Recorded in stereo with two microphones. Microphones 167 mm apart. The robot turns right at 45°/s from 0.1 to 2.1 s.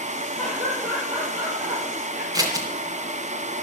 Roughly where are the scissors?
Right.